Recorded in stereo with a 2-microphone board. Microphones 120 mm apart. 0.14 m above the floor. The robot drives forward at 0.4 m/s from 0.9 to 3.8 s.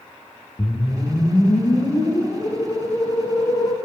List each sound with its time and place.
0.6 s a whoosh: 35° left (ahead or behind), 4.5 m; by 3.8 s 45° left (ahead or behind), 4 m